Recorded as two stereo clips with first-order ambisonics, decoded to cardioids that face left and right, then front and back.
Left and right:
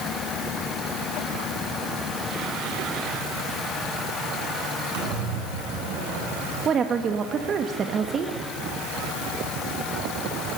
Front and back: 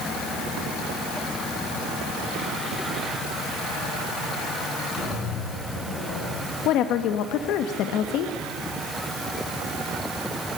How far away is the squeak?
About 9.5 m.